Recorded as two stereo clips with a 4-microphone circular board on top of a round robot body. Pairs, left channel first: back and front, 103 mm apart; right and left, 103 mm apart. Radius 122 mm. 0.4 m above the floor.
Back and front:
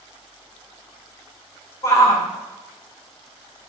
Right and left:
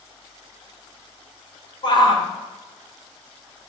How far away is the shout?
About 2.5 m.